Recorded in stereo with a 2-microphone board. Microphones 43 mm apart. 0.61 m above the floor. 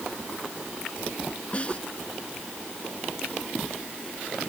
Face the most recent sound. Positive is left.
turn(degrees=30)  # may be behind; listen again after turning